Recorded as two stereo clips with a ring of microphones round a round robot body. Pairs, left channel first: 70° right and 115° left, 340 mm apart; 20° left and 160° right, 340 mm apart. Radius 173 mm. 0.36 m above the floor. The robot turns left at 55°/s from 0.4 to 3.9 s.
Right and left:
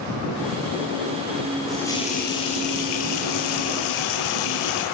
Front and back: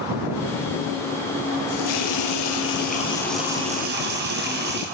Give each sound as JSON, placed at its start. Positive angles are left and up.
{"t": 1.7, "sound": "a running tap", "azimuth_deg": 25, "distance_m": 6.5}